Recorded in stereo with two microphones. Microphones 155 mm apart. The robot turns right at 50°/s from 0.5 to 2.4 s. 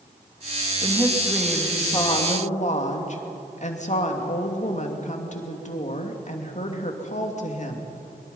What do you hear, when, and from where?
0.8 s a woman speaking: 35° right, 2.5 m; by 7.9 s 45° left, 2.5 m